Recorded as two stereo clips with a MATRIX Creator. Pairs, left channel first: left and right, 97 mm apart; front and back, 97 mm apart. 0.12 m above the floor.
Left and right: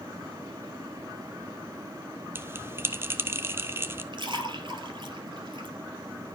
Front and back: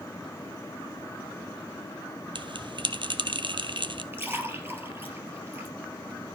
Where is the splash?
115° right, 2.5 m.